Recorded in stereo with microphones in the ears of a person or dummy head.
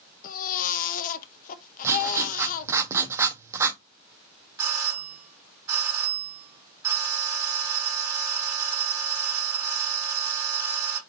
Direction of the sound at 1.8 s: 15° right (ahead or behind).